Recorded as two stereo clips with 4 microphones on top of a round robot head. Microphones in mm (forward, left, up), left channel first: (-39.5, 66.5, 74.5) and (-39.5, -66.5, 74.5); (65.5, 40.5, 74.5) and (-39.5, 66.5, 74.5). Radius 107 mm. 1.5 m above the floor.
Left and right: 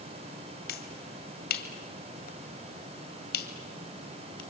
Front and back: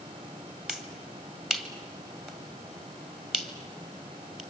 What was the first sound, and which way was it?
A finger snap, 80° left.